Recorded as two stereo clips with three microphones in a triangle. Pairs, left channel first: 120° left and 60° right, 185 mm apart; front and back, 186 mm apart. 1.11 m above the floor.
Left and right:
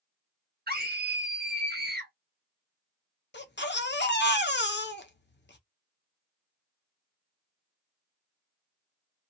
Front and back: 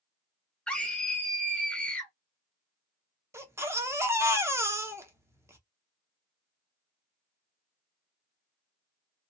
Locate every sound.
0.7 s a scream: 85° right, 1.2 m
3.3 s a baby crying: 105° left, 0.6 m